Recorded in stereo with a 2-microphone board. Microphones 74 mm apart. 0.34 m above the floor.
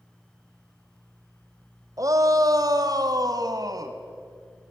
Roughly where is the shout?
Right.